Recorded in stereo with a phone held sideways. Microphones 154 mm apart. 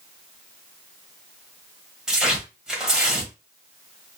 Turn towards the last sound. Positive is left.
turn(degrees=-5)  # may be behind; listen again after turning